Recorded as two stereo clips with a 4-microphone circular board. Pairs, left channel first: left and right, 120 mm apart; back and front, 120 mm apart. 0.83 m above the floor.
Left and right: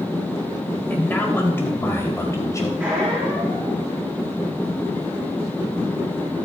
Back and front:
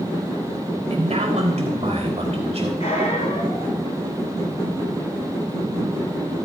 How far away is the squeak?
About 7.5 m.